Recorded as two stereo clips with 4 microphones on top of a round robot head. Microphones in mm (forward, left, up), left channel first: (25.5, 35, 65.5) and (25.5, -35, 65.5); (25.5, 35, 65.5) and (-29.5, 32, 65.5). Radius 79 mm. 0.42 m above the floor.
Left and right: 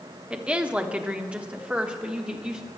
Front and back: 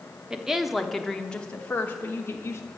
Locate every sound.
0.3 s a woman speaking: 130° right, 1.1 m; by 2.6 s 20° right, 1.5 m